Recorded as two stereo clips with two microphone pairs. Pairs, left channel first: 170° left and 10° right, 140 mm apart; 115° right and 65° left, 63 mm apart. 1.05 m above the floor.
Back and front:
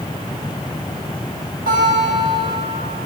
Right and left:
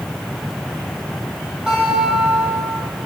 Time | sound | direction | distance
1.7 | a guitar | 10° right | 4.5 m